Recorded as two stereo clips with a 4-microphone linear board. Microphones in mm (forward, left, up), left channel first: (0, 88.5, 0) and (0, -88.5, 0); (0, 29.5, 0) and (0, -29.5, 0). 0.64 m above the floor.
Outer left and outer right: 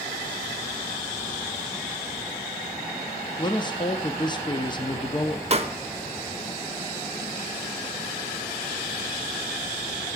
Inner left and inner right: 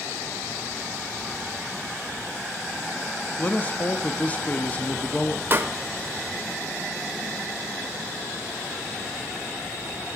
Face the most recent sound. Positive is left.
turn(degrees=-35)  # may be behind; listen again after turning